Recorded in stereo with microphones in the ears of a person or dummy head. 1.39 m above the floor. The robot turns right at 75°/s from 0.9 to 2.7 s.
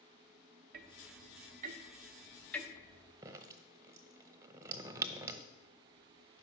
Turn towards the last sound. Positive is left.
turn(degrees=-20)  # may be behind; listen again after turning